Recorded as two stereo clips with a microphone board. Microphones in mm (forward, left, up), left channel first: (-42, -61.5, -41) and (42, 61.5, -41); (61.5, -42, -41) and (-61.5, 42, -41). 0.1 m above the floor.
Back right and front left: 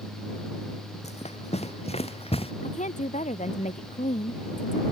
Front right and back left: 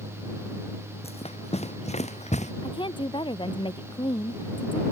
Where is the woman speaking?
90° right.